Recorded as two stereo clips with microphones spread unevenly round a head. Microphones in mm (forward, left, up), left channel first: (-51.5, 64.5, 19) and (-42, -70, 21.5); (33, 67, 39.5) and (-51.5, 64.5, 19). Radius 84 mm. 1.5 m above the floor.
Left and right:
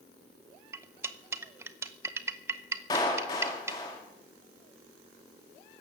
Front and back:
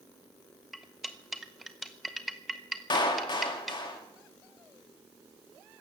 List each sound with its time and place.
0.7 s cutlery clinking: 55° right, 0.6 m
2.9 s a clap: 25° left, 2.5 m